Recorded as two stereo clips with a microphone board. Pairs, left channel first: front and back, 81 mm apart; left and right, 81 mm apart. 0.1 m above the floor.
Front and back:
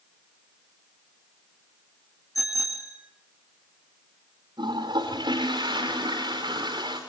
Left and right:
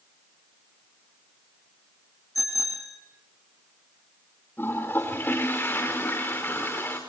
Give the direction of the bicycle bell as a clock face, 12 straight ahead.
10 o'clock.